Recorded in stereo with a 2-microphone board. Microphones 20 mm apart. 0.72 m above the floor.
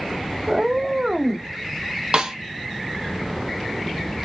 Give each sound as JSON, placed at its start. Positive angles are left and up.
{"t": 0.5, "sound": "a cat meowing", "side_deg": -30, "distance_m": 0.6}
{"t": 2.1, "sound": "a snare drum", "side_deg": -45, "distance_m": 0.5}